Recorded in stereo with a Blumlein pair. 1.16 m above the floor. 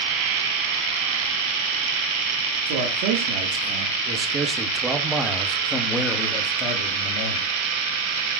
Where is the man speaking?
50° right, 2.5 m; by 7.5 s 40° left, 2.5 m.